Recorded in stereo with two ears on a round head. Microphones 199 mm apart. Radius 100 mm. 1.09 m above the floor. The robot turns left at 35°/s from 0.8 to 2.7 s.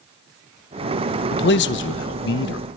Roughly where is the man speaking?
Left.